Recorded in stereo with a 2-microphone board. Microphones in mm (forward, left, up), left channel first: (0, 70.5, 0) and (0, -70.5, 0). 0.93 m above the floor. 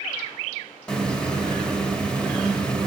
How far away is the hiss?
About 1.6 m.